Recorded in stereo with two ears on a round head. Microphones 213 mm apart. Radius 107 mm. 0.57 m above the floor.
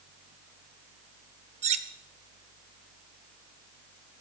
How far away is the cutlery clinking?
About 0.6 m.